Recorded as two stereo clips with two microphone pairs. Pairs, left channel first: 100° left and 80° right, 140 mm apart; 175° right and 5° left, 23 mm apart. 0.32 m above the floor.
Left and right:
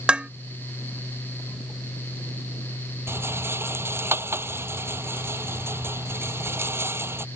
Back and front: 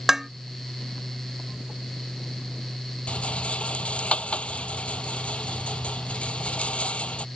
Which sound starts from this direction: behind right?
A rattle, at 3.1 s.